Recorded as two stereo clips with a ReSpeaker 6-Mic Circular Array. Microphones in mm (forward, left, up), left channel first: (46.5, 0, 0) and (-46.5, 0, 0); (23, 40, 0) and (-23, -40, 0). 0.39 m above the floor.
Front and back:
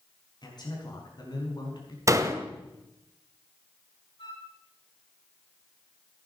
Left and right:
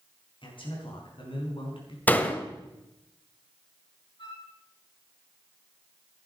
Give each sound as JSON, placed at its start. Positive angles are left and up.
{"t": 0.4, "sound": "a man speaking", "azimuth_deg": 40, "distance_m": 5.0}
{"t": 2.1, "sound": "a door slam", "azimuth_deg": 130, "distance_m": 1.1}
{"t": 4.2, "sound": "a flute", "azimuth_deg": 25, "distance_m": 7.0}